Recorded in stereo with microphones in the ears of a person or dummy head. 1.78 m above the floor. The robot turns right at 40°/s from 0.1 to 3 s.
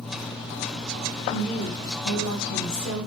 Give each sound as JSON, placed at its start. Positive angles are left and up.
{"t": 1.3, "sound": "a woman speaking", "azimuth_deg": 30, "distance_m": 1.8}